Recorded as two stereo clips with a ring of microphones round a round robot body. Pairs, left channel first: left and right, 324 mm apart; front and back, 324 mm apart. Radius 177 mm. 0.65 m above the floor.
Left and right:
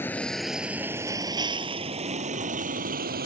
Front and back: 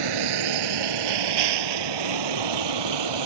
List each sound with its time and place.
0.0 s a vehicle: 175° left; by 3.3 s 155° right